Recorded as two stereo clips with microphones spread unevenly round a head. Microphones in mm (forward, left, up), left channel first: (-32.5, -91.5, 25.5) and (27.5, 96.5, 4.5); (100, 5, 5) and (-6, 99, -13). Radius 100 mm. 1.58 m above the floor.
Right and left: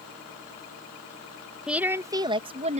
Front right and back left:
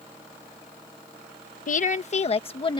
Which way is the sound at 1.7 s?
15° right.